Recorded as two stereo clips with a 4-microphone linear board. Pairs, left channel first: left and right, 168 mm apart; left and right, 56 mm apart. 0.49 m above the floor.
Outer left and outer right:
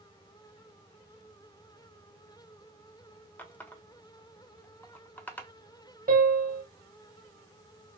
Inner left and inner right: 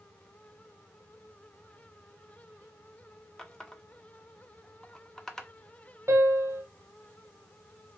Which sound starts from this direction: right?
A piano, at 6.1 s.